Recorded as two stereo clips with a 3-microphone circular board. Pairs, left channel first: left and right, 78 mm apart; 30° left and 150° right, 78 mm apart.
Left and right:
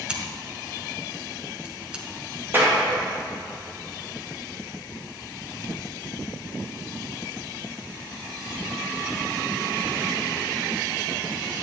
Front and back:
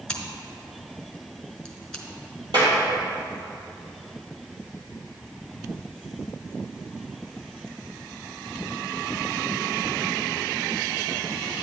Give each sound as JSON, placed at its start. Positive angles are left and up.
{"t": 0.1, "sound": "scissors", "azimuth_deg": -35, "distance_m": 1.1}
{"t": 2.5, "sound": "a clap", "azimuth_deg": -150, "distance_m": 2.5}